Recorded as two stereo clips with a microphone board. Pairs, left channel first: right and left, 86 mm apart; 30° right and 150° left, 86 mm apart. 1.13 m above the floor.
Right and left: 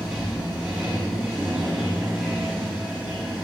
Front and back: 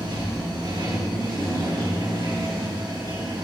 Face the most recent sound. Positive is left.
turn(degrees=170)